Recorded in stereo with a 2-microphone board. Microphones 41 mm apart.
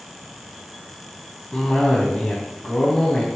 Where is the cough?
15° left (ahead or behind), 2.5 m.